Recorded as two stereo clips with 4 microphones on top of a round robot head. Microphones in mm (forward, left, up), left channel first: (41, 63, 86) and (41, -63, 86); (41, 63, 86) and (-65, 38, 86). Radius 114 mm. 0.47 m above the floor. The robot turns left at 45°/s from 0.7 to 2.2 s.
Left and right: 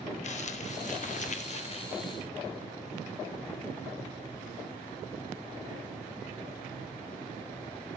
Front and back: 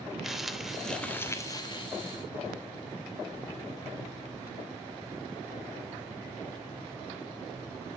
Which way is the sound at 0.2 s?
105° left.